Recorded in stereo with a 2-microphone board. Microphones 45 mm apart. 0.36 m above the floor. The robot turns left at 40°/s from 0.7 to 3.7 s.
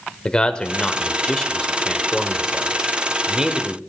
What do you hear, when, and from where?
0.2 s a man speaking: 20° left (ahead or behind), 1.1 m; by 3.8 s 20° right (ahead or behind), 1.1 m